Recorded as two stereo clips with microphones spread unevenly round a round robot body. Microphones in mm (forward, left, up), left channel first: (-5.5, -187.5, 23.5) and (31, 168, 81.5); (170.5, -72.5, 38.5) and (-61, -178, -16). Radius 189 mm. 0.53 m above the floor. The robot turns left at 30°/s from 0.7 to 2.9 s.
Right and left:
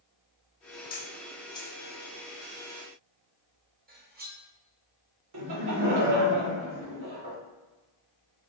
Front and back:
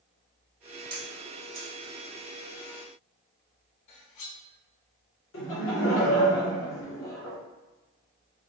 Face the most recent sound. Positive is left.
turn(degrees=65)